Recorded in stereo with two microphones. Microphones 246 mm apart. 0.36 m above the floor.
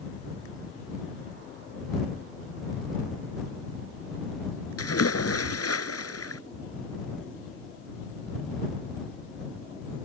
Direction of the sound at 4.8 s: 75° left (ahead or behind).